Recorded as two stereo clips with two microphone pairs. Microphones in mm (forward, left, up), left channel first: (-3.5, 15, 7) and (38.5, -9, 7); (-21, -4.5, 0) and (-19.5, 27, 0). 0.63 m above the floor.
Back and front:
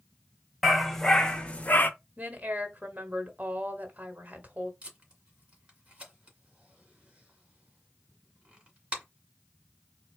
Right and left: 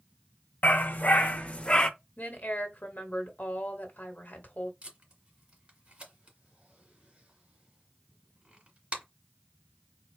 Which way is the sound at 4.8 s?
35° left.